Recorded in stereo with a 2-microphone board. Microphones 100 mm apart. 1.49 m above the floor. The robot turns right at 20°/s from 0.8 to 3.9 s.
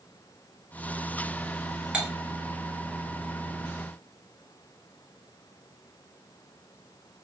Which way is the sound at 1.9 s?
10° right (ahead or behind).